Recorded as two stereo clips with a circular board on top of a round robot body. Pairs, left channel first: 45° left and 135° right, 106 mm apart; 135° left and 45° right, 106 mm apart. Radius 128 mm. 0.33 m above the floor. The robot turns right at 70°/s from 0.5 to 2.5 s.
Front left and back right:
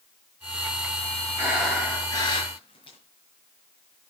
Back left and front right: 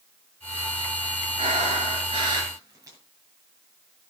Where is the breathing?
65° right, 7.5 m; by 3.0 s 10° left, 7.5 m.